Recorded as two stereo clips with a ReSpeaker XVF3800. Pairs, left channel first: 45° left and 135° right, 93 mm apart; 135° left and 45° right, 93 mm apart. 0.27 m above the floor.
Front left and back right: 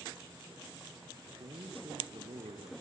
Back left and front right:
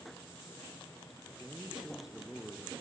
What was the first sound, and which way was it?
A man speaking, 120° right.